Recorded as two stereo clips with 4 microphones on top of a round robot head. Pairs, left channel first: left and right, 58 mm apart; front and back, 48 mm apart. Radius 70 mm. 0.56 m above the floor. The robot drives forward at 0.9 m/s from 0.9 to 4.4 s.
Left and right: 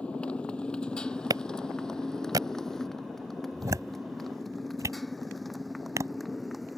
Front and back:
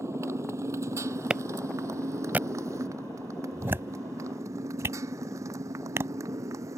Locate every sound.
0.0 s a motorcycle: 165° left; by 6.8 s straight behind
1.3 s a clap: 105° right; by 6.1 s 135° right